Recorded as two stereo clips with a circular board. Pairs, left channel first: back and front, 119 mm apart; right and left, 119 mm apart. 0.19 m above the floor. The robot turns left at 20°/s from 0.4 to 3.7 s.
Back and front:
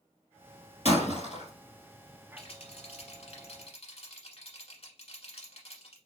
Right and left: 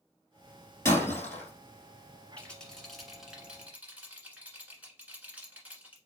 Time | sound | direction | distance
0.8 | breaking glass | 155° right | 2 m
2.4 | a rattle | 165° right | 1.2 m